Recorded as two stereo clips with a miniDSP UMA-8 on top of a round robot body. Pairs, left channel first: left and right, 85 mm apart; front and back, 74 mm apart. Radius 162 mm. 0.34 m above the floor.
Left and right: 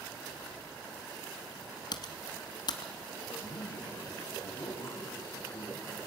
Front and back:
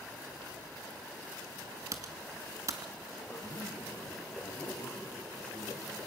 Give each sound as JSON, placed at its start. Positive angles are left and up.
{"t": 1.9, "sound": "typing on a keyboard", "azimuth_deg": 130, "distance_m": 1.0}
{"t": 3.3, "sound": "a man speaking", "azimuth_deg": 55, "distance_m": 3.5}